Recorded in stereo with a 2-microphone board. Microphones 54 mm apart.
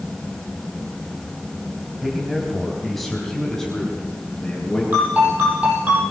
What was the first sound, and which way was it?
A man speaking, 5° right (ahead or behind).